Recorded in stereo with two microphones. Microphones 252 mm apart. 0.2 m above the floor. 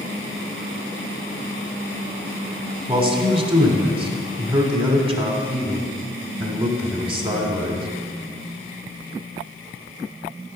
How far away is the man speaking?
About 1.2 m.